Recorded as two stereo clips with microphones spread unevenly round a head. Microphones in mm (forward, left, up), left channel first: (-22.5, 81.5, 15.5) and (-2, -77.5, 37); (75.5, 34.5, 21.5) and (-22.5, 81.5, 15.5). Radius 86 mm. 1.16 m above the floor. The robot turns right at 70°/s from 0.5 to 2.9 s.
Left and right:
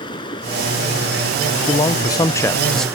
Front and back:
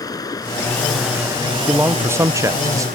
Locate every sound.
0.0 s running water: 30° left; by 3.0 s 160° right
1.7 s a man speaking: 85° left; by 2.9 s 170° left